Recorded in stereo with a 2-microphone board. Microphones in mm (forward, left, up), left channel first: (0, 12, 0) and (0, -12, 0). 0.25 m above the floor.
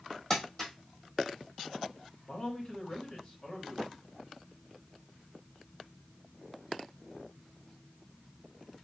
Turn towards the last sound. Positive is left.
turn(degrees=30)  # may be behind; listen again after turning